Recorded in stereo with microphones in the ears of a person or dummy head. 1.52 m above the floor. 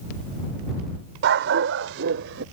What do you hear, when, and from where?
1.2 s a dog barking: 55° right (ahead or behind); by 2.4 s 70° right (ahead or behind)